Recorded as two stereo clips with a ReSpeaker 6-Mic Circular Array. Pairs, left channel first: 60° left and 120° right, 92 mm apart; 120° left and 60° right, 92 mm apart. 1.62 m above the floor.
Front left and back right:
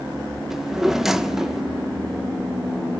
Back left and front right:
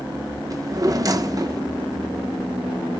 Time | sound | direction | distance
0.5 | a drawer | 35° right | 0.9 m